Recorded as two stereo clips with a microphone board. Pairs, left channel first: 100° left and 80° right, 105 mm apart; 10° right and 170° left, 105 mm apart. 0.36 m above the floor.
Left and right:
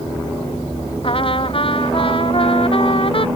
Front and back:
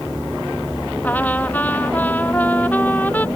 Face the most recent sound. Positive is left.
turn(degrees=65)